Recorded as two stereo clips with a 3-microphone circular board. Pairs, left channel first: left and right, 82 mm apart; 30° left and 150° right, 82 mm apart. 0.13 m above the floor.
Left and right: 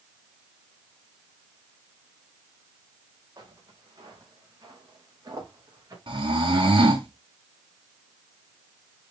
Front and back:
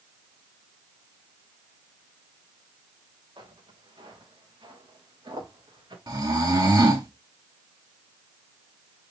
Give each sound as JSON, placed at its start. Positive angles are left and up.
{"t": 3.4, "sound": "footsteps", "azimuth_deg": -135, "distance_m": 6.5}
{"t": 6.1, "sound": "snoring", "azimuth_deg": -110, "distance_m": 4.0}